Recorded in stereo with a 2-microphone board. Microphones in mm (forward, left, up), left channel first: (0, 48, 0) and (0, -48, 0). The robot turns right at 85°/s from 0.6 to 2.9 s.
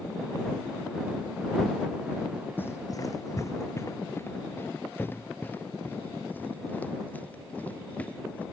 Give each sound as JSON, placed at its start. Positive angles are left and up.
{"t": 2.6, "sound": "running footsteps", "side_deg": 20}